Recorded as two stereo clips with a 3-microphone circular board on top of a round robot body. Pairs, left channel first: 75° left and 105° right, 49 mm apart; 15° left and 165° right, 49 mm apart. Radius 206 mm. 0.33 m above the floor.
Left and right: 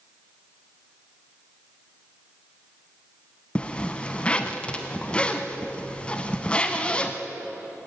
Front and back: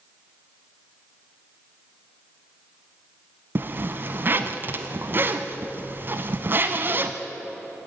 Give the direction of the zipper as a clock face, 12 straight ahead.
7 o'clock.